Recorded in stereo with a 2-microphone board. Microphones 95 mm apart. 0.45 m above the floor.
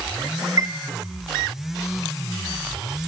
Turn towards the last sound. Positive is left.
turn(degrees=-40)  # may be behind; listen again after turning